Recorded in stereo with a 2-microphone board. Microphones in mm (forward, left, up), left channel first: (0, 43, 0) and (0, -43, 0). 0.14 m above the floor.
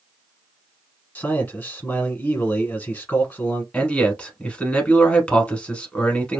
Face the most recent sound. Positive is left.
turn(degrees=15)  # may be behind; listen again after turning